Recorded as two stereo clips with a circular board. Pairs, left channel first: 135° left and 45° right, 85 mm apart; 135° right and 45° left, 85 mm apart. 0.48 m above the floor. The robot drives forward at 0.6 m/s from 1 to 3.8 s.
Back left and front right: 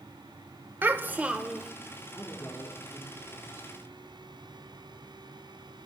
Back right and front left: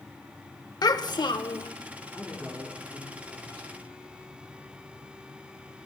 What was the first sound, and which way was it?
A child speaking, 105° right.